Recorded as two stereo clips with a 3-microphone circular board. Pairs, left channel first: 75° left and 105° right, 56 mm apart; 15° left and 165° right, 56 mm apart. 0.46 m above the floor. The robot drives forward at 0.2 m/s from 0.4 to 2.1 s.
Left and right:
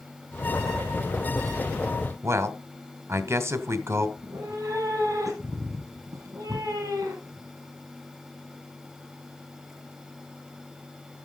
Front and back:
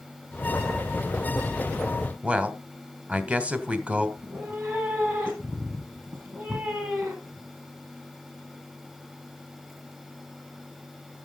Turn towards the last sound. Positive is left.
turn(degrees=-110)